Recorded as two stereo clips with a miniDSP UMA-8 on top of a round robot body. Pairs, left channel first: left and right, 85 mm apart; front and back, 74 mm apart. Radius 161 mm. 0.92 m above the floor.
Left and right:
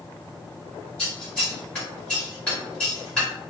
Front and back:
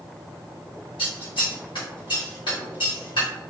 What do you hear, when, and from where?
1.0 s scissors: 15° left, 1.6 m